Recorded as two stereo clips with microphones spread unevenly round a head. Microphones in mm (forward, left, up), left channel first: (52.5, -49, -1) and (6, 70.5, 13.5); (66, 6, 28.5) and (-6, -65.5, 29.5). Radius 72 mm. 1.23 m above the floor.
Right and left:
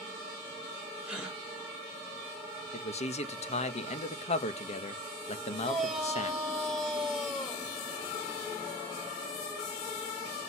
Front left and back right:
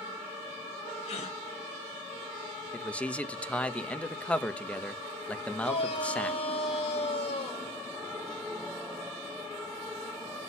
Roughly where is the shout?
Ahead.